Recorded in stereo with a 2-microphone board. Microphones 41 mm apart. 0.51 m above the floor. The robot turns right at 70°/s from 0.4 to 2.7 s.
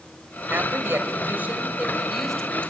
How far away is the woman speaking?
About 3 m.